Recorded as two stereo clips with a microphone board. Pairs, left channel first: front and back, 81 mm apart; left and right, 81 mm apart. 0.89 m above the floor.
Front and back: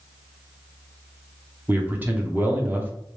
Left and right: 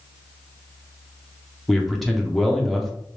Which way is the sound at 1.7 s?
175° left.